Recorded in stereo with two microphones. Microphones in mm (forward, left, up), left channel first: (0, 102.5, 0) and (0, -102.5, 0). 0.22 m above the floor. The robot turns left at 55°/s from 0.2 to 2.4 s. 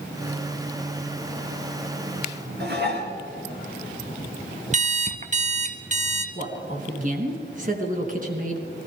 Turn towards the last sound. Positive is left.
turn(degrees=-40)  # may be behind; listen again after turning